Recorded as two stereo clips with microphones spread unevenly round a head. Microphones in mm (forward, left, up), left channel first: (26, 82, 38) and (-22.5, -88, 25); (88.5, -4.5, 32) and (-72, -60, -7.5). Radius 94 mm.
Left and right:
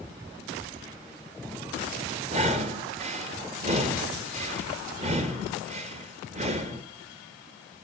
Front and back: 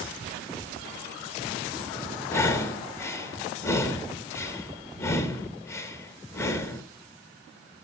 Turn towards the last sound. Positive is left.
turn(degrees=-60)